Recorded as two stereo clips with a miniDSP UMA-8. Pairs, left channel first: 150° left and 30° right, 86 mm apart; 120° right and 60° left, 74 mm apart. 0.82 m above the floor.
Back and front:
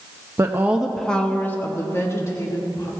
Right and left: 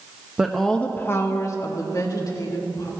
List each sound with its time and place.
0.4 s a woman speaking: 10° right, 0.8 m; by 2.9 s 160° right, 2.5 m